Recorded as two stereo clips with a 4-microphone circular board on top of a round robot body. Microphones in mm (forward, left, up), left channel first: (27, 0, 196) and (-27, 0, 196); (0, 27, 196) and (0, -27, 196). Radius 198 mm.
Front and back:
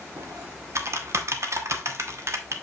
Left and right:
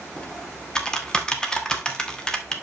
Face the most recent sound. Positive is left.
turn(degrees=165)